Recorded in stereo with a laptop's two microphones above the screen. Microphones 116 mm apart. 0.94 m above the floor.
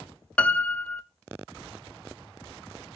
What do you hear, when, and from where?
0.4 s a piano: 10° left (ahead or behind), 0.6 m